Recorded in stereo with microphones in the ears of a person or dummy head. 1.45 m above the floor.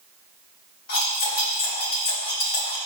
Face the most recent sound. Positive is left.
turn(degrees=50)  # may be behind; listen again after turning